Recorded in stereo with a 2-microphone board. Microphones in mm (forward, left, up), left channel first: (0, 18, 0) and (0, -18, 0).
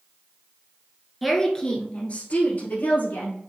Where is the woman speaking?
Centre (ahead or behind), 1.2 m; by 3.4 s 65° left (ahead or behind), 2.5 m.